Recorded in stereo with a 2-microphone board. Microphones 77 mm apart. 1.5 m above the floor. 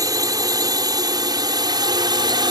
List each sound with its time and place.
0.0 s a drone: 50° right (ahead or behind); by 2.5 s 70° right (ahead or behind)